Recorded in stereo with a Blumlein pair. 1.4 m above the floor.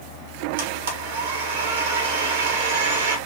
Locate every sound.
0.6 s a blender: 60° right, 1.1 m